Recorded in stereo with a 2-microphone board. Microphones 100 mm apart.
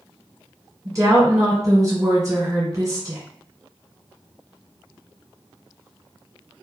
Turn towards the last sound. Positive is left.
turn(degrees=-35)  # may be behind; listen again after turning